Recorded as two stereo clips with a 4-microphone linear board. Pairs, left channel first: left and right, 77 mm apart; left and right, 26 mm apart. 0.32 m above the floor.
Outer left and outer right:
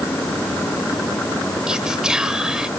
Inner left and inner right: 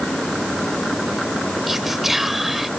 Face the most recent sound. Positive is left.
turn(degrees=-10)  # may be behind; listen again after turning